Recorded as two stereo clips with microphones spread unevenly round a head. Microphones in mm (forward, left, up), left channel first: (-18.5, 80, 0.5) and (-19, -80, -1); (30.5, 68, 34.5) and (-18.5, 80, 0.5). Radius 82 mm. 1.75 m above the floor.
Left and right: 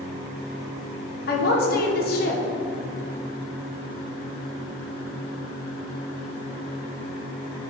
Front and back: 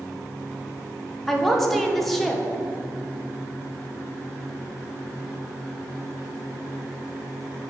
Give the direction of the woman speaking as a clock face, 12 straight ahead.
10 o'clock.